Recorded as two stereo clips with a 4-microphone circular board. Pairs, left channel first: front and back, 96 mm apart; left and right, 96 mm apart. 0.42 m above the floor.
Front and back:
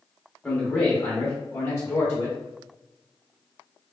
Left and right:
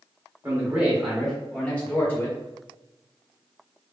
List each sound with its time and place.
0.4 s a man speaking: 60° right, 0.9 m; by 2.4 s 45° left, 1.1 m